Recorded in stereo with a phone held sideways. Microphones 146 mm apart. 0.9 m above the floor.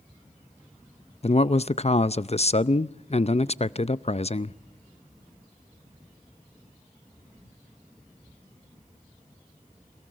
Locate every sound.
1.2 s a man speaking: 50° left (ahead or behind), 0.5 m